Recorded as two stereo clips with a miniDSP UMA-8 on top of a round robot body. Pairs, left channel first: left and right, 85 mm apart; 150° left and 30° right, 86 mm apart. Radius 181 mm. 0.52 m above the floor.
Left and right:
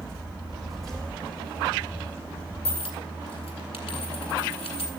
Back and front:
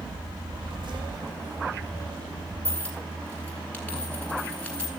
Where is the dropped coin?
75° left, 0.6 m.